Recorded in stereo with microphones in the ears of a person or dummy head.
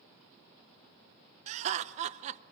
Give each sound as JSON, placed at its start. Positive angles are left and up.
{"t": 1.5, "sound": "laughter", "side_deg": -35, "distance_m": 0.8}